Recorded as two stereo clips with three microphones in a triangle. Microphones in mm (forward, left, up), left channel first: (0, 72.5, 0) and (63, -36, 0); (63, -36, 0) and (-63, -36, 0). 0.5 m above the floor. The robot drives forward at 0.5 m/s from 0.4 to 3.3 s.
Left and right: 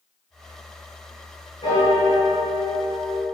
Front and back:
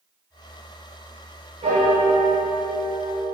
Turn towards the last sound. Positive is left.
turn(degrees=170)